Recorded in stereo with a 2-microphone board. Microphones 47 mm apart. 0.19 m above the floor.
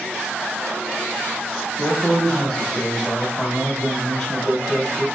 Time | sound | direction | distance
1.8 | a man speaking | 10° left (ahead or behind) | 1.5 m